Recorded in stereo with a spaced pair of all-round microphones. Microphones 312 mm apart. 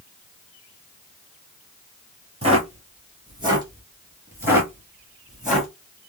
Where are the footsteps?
20° right (ahead or behind), 1.8 m; by 5.7 s centre (ahead or behind), 2 m.